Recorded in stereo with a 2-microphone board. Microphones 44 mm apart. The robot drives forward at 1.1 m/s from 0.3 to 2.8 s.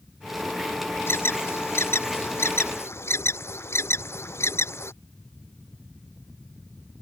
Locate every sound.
1.1 s an alarm: 65° left (ahead or behind); by 4.9 s 75° left (ahead or behind)